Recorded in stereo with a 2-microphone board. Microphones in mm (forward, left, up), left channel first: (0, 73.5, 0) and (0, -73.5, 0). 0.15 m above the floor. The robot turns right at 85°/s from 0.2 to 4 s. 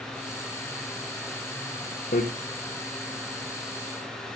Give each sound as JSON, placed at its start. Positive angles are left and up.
{"t": 2.1, "sound": "hammering", "side_deg": 70, "distance_m": 4.0}